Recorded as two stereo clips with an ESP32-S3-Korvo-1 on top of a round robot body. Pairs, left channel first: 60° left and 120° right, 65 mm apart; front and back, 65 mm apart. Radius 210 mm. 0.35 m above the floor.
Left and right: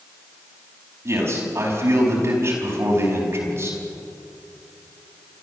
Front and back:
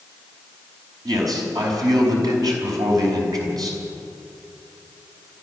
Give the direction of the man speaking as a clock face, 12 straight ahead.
6 o'clock.